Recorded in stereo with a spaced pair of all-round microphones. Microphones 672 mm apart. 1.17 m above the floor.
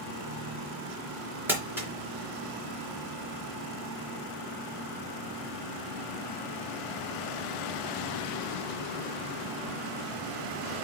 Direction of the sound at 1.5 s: 5° right (ahead or behind).